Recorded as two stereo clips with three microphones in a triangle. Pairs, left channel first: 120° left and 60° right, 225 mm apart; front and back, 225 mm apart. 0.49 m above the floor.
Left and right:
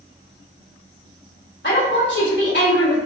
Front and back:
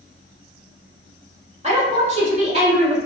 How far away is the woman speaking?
About 1.7 m.